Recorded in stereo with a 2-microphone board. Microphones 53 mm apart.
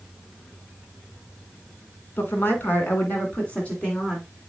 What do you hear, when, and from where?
2.2 s a woman speaking: 45° left (ahead or behind), 2.5 m; by 4.2 s 15° left (ahead or behind), 2.5 m